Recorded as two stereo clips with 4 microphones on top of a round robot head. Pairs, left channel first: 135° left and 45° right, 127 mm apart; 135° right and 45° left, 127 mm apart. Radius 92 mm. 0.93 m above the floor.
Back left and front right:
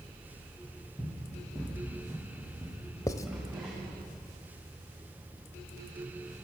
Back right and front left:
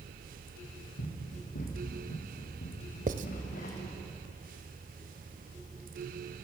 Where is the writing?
70° left, 1.0 m.